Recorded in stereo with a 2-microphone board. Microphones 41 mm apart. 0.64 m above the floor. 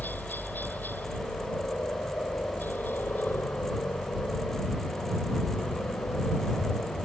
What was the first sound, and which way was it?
A helicopter, 50° left (ahead or behind).